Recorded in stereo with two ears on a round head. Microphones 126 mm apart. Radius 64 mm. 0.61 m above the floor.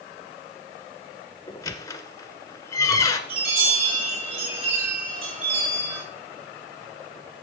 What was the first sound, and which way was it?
A squeak, 25° left (ahead or behind).